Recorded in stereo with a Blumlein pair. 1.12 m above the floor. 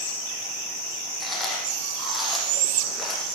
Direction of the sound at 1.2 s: 5° left.